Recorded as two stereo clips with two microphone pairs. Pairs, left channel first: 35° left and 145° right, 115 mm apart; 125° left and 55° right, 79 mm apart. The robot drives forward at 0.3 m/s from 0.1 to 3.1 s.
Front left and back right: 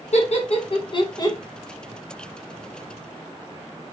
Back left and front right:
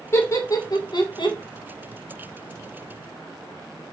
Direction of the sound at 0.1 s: 65° left.